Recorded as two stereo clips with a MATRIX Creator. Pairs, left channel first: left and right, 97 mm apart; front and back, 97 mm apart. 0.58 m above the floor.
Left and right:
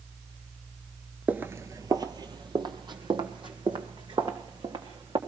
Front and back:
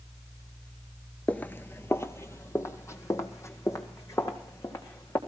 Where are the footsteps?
45° right, 0.5 m; by 5.2 s 60° right, 3.5 m.